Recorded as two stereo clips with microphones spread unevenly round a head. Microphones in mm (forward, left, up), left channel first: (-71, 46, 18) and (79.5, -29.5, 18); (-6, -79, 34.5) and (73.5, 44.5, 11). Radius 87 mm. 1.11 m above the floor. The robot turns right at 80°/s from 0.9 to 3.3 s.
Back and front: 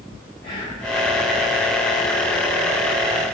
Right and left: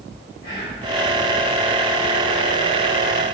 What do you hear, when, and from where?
0.4 s whispering: 160° right, 1.2 m